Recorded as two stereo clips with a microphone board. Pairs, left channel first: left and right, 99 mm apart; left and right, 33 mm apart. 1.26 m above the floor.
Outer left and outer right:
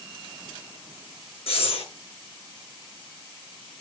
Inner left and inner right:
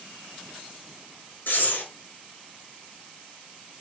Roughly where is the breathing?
Left.